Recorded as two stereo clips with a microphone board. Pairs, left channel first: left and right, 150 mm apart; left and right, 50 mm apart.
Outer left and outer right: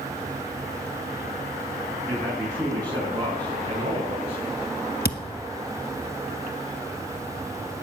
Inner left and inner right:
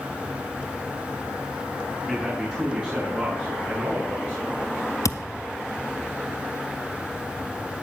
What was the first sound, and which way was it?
A man speaking, 20° right (ahead or behind).